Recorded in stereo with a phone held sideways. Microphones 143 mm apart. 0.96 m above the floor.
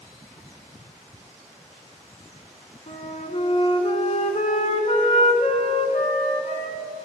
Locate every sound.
2.9 s a flute: 55° left (ahead or behind), 1.4 m